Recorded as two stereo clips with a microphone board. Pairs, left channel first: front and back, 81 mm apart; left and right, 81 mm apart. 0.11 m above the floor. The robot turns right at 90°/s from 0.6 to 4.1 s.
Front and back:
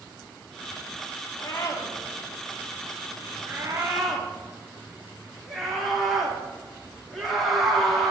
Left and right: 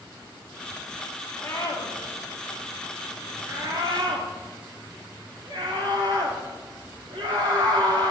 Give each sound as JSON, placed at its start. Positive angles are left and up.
{"t": 1.4, "sound": "a scream", "azimuth_deg": 30, "distance_m": 5.5}